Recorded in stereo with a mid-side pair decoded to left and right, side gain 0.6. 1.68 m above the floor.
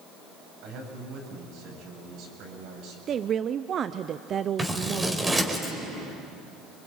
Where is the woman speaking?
40° right, 0.7 m.